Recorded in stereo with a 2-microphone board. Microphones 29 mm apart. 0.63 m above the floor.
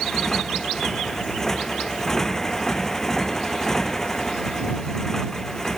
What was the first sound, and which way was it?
A motorcycle, 15° left (ahead or behind).